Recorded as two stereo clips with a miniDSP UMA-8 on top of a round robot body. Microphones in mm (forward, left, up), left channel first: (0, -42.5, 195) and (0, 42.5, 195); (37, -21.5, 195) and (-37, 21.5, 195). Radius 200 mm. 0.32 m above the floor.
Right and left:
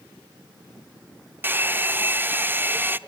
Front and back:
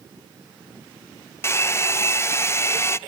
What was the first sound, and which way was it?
A hair dryer, 25° left.